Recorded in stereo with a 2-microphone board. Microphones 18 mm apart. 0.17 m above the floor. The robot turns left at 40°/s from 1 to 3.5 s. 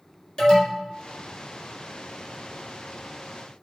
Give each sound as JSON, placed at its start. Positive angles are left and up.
{"t": 0.4, "sound": "an alarm", "side_deg": 40, "distance_m": 2.5}